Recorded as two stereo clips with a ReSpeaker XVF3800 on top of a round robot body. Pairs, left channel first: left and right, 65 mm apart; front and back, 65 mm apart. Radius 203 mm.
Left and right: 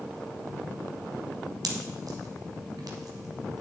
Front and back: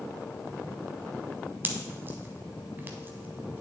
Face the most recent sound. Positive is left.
turn(degrees=-120)